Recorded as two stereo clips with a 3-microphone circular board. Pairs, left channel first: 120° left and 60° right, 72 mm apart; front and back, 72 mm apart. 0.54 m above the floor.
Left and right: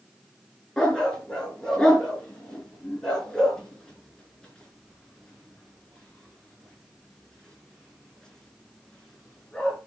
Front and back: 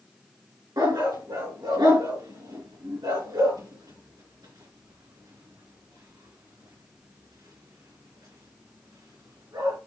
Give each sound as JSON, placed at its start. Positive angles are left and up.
{"t": 0.8, "sound": "a dog barking", "azimuth_deg": -160, "distance_m": 3.0}